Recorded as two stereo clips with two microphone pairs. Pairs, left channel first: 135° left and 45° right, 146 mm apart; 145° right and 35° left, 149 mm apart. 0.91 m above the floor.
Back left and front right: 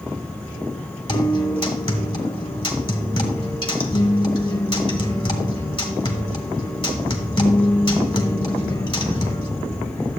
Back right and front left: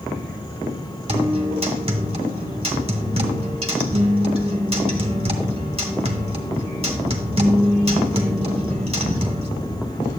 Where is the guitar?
80° left, 1.4 m.